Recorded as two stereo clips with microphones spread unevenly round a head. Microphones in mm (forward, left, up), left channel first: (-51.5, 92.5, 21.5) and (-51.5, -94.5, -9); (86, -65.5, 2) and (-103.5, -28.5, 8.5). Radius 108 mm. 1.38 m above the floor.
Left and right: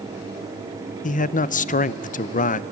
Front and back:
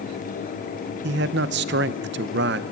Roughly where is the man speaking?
Behind left.